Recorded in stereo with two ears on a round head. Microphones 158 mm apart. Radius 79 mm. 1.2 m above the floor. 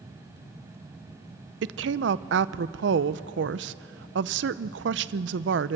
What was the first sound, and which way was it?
A woman speaking, 70° right (ahead or behind).